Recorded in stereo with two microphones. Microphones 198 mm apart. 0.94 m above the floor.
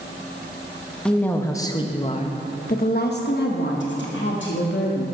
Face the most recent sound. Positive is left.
turn(degrees=70)  # may be behind; listen again after turning